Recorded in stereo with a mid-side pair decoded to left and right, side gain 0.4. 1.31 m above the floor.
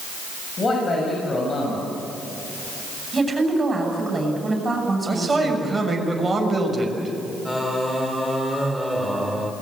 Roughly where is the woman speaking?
Ahead right.